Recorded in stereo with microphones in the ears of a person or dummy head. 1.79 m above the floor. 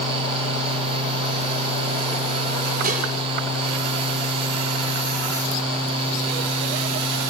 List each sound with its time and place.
2.8 s dishes clattering: 50° right (ahead or behind), 3.5 m